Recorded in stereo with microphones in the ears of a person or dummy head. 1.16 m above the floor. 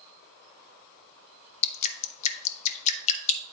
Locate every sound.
1.6 s dripping: 40° left (ahead or behind), 0.7 m